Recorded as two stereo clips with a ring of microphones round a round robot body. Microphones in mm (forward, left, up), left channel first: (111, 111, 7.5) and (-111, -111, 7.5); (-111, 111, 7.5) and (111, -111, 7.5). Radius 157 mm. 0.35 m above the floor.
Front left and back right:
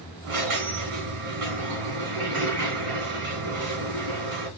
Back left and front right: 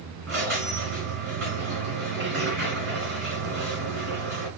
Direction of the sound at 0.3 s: 95° right.